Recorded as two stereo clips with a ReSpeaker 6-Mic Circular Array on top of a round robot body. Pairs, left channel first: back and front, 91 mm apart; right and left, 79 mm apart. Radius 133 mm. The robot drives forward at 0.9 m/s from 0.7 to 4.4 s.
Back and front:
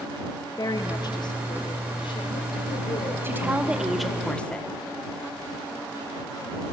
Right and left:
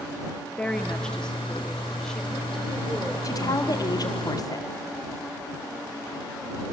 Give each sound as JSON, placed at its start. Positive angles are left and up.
{"t": 0.6, "sound": "a woman speaking", "azimuth_deg": -165, "distance_m": 1.6}
{"t": 3.2, "sound": "a woman speaking", "azimuth_deg": -60, "distance_m": 1.7}